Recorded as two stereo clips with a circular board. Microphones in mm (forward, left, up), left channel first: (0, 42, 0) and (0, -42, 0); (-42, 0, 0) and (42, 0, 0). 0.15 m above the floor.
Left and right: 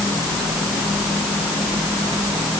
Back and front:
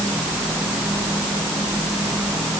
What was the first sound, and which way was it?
Only background noise.